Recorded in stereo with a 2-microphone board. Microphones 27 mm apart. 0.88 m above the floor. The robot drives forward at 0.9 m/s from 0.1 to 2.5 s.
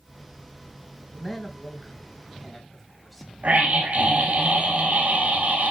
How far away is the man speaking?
About 7.5 m.